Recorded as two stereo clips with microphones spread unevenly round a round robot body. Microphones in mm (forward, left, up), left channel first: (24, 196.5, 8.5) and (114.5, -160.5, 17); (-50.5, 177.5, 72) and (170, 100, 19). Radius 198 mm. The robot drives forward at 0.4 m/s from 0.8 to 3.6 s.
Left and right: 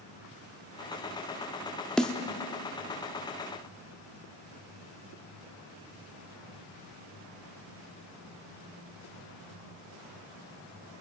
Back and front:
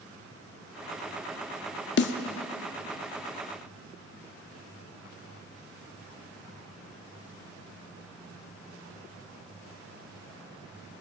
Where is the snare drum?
170° right, 0.8 m.